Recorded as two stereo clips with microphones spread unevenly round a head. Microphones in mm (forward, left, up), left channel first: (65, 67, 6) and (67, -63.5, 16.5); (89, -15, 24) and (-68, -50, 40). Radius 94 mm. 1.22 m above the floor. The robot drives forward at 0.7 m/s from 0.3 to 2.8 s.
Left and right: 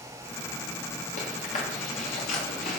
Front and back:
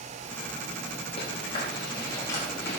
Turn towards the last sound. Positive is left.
turn(degrees=95)